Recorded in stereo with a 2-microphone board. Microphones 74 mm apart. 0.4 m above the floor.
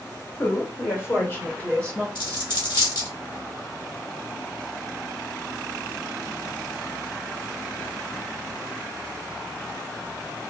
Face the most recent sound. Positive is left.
turn(degrees=60)  # may be behind; listen again after turning